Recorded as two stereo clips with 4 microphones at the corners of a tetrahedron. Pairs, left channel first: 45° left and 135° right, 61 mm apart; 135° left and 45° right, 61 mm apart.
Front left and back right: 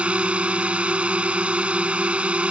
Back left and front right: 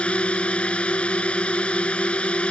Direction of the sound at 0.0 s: Straight behind.